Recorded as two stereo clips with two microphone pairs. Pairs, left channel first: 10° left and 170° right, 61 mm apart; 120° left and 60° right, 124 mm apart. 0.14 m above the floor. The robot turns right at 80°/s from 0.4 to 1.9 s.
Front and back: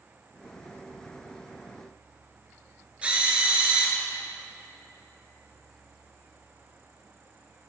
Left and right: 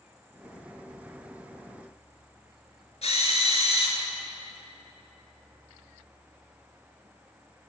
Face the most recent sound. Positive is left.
turn(degrees=125)